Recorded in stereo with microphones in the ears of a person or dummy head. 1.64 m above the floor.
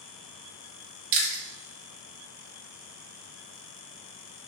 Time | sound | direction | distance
1.1 | chewing | 50° right (ahead or behind) | 1.1 m